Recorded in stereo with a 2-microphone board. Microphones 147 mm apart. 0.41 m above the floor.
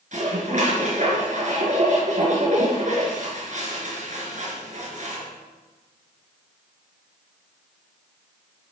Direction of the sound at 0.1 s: 55° right (ahead or behind).